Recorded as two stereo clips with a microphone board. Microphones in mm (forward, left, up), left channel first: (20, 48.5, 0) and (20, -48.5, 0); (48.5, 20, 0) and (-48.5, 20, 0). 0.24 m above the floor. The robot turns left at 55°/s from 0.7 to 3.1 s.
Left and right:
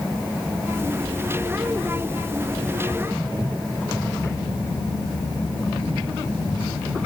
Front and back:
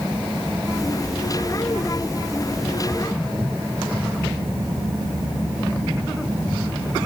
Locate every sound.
Only background noise.